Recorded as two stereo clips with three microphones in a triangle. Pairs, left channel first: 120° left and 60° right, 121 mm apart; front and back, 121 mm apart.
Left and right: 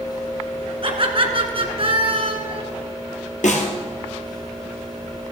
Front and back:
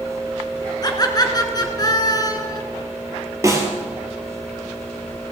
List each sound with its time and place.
0.8 s laughter: 45° right, 1.6 m
3.4 s a snare drum: 115° left, 1.9 m